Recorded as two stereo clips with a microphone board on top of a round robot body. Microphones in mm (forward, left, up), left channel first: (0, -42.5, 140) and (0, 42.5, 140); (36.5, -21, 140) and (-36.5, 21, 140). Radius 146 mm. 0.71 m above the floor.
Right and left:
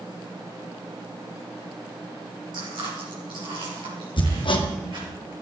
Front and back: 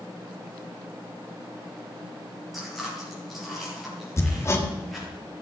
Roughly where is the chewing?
Ahead left.